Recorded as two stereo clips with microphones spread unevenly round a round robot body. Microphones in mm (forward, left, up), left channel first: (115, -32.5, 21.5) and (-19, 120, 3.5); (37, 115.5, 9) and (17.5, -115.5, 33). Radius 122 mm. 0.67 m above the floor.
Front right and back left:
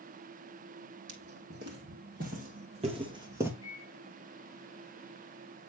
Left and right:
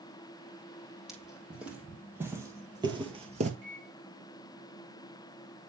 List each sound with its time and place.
1.1 s footsteps: straight behind, 1.9 m; by 3.5 s 145° right, 0.9 m
3.6 s a microwave: 100° right, 5 m